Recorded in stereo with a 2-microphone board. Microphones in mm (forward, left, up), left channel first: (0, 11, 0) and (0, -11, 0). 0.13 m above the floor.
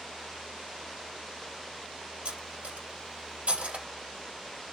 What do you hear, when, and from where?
2.2 s cutlery clinking: 60° right (ahead or behind), 1.7 m